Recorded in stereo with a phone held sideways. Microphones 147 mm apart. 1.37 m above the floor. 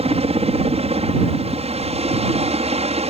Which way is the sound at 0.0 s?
45° right (ahead or behind).